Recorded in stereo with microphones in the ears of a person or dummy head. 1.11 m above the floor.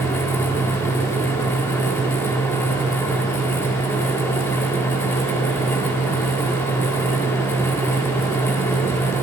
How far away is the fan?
About 0.9 m.